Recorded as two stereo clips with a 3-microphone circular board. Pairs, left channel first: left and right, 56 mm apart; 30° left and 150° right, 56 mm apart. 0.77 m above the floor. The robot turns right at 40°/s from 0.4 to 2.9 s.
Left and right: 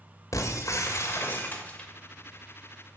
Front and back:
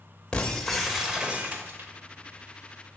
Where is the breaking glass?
105° left, 1.9 m; by 1.9 s 165° left, 1.9 m.